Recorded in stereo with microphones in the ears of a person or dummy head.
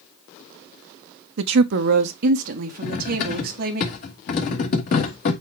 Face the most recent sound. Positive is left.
turn(degrees=45)  # may be behind; listen again after turning